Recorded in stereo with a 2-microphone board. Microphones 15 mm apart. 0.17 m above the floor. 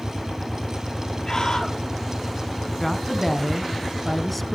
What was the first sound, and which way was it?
A scream, 40° left (ahead or behind).